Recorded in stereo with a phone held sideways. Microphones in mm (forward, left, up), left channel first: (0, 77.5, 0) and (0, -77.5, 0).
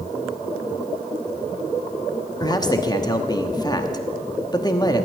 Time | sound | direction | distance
2.4 | a man speaking | 25° left (ahead or behind) | 1.1 m